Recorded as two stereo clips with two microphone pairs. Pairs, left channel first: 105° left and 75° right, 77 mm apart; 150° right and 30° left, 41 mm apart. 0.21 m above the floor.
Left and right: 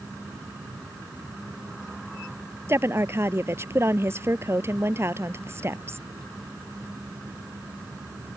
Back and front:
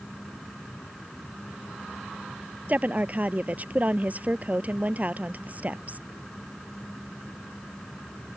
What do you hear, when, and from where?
2.7 s a woman speaking: 20° right